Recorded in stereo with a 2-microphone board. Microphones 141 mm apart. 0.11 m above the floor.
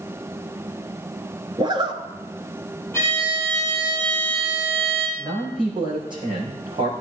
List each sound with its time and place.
1.6 s a zipper: 35° right (ahead or behind), 1.0 m
2.9 s a violin: 15° left (ahead or behind), 4 m
5.2 s a man speaking: 35° right (ahead or behind), 5.5 m